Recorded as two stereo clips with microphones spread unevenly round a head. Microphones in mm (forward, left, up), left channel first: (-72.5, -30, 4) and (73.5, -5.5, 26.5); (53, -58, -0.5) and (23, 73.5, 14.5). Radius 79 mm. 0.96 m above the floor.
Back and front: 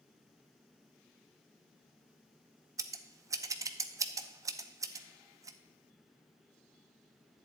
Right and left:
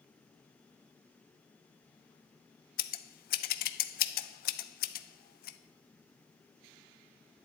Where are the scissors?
60° right, 0.5 m.